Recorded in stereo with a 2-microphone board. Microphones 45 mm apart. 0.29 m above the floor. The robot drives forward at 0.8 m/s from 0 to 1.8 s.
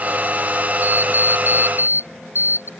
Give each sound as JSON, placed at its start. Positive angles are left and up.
{"t": 0.8, "sound": "an alarm clock", "side_deg": -45}